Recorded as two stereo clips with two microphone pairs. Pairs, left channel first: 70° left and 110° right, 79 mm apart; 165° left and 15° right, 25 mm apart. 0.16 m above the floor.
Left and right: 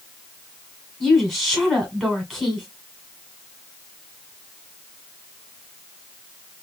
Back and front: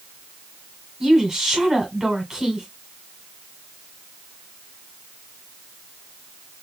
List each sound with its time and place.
1.0 s a woman speaking: 10° right, 1.5 m